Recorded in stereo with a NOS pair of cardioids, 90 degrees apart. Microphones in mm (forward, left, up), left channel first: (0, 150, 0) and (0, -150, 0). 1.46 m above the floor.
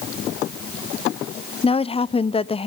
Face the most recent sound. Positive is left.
turn(degrees=20)